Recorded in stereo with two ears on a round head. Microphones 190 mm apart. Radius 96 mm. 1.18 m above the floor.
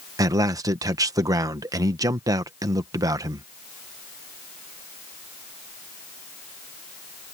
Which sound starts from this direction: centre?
A man speaking, at 0.2 s.